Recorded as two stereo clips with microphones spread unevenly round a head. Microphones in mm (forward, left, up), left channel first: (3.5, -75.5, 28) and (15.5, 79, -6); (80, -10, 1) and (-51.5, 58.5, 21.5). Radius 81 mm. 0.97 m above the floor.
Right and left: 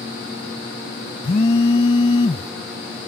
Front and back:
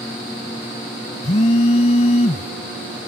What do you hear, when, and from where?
1.2 s a phone buzzing: 70° right